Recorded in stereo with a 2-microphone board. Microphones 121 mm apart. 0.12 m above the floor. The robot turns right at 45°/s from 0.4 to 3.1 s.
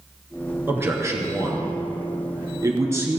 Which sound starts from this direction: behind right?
A man speaking, at 0.7 s.